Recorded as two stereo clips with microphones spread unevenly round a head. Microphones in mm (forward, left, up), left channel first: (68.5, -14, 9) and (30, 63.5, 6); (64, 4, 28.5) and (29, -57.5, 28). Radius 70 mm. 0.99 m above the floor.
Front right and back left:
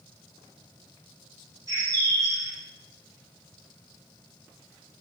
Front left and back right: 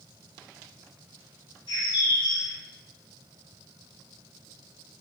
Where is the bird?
70° left, 2.5 m.